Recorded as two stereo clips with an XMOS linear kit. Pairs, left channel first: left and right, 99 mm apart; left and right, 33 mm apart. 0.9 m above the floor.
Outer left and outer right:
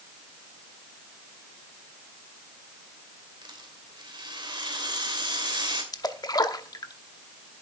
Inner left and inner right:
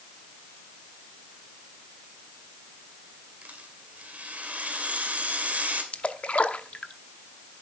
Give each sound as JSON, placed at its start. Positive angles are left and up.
{"t": 3.4, "sound": "a rattle", "side_deg": -55, "distance_m": 2.5}
{"t": 5.9, "sound": "a splash", "side_deg": 45, "distance_m": 0.8}